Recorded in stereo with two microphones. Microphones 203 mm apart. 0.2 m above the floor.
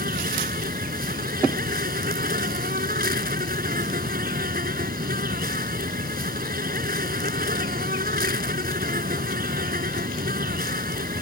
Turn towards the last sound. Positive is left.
turn(degrees=-50)  # may be behind; listen again after turning